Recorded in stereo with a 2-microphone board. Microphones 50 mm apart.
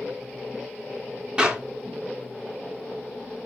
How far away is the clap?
About 2.5 m.